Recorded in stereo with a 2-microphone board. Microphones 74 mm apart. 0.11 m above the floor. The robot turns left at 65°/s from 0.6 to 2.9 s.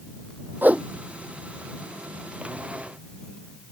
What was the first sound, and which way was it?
A whoosh, 25° right (ahead or behind).